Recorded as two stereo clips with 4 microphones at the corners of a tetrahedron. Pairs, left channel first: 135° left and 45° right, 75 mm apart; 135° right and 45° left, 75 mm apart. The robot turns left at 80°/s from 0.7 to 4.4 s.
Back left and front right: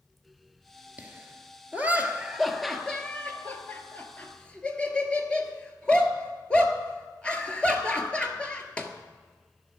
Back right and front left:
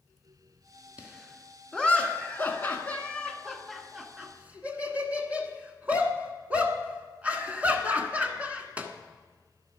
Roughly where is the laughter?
Ahead.